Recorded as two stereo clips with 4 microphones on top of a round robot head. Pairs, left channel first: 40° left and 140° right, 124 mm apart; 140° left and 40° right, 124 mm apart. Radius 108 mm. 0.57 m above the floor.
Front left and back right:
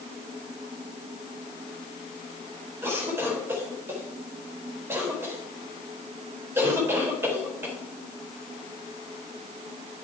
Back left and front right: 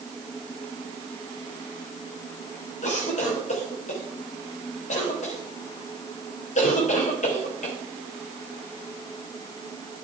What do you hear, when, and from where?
2.8 s a cough: 150° left, 3.5 m